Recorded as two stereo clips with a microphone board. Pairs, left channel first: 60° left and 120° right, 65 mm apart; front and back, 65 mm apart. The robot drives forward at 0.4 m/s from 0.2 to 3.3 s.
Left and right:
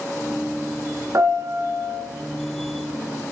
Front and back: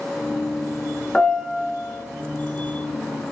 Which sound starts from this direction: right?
A piano, at 1.1 s.